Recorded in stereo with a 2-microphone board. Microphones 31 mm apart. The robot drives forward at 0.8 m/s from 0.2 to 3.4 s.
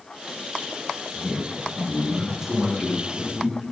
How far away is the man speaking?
About 7 m.